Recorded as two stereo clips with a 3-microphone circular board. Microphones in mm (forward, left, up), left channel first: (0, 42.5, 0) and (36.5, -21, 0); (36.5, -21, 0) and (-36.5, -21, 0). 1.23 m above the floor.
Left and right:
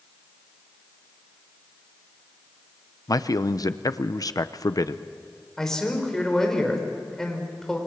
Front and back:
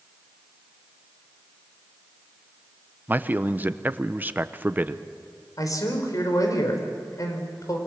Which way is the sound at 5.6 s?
35° left.